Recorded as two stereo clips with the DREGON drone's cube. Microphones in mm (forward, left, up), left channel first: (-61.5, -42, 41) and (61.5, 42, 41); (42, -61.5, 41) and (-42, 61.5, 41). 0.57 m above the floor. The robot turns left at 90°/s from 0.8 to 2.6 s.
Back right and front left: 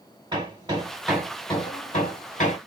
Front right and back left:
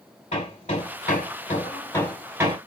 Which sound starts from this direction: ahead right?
Hammering, at 0.3 s.